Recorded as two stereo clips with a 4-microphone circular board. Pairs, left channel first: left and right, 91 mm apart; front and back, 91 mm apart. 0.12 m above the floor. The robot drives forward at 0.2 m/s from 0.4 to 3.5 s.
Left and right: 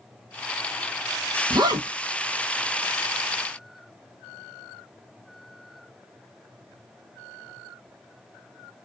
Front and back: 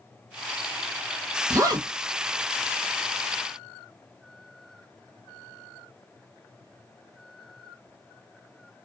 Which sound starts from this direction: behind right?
A zipper, at 1.5 s.